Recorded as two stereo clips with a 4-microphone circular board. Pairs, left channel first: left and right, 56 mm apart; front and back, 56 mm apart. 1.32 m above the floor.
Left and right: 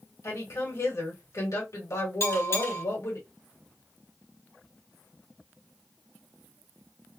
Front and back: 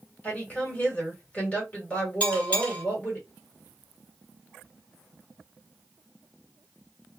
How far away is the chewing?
No chewing in this recording.